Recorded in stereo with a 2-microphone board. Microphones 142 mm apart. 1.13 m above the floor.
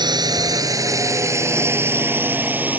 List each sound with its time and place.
0.0 s a drone: 30° right (ahead or behind); by 2.8 s 10° right (ahead or behind)